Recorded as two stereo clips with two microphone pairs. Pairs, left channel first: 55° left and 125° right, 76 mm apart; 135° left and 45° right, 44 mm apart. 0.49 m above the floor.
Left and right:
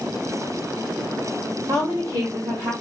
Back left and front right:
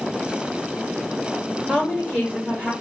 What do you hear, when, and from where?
1.7 s a woman speaking: 105° right, 1.9 m; by 2.7 s 125° right, 2 m